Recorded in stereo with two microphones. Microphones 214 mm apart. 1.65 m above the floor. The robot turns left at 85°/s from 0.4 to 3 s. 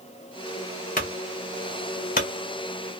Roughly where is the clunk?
Left.